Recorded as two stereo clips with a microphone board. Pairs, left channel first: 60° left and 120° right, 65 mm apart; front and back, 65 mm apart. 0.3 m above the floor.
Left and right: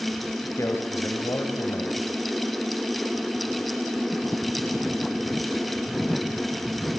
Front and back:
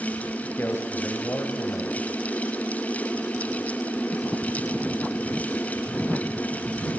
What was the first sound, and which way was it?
A man speaking, 40° left.